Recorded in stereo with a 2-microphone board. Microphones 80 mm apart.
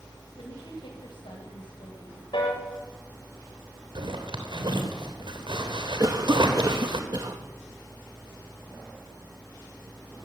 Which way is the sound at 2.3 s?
85° left.